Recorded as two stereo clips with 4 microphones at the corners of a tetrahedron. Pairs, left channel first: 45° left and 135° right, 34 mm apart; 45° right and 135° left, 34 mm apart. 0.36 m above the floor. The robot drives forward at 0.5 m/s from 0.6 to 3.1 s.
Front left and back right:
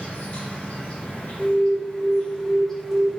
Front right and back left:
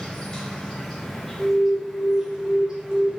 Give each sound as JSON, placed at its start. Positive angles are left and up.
{"t": 0.0, "sound": "an insect", "azimuth_deg": 25, "distance_m": 1.3}
{"t": 1.4, "sound": "an alarm", "azimuth_deg": -35, "distance_m": 1.1}